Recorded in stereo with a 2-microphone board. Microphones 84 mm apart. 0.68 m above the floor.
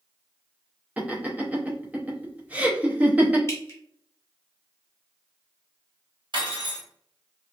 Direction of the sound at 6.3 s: 60° right (ahead or behind).